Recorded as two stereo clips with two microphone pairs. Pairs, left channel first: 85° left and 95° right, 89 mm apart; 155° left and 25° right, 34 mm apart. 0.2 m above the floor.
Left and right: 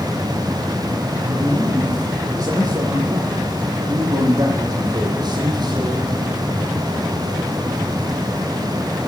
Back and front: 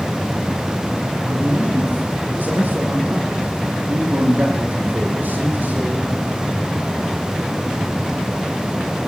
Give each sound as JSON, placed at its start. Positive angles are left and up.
{"t": 1.2, "sound": "a man speaking", "azimuth_deg": -45, "distance_m": 9.0}